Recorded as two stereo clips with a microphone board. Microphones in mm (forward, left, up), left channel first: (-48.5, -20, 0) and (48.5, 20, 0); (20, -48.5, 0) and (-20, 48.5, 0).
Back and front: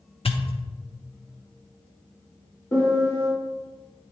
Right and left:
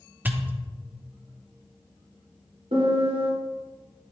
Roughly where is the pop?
Behind.